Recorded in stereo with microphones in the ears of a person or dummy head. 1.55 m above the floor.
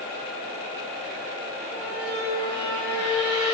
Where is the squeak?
25° right (ahead or behind), 2.0 m.